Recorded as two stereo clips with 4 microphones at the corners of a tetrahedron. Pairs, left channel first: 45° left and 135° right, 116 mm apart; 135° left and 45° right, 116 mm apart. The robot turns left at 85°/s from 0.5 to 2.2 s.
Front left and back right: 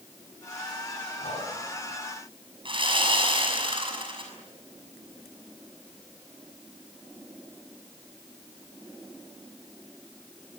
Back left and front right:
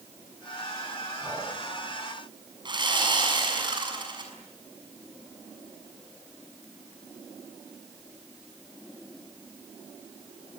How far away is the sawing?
About 6 m.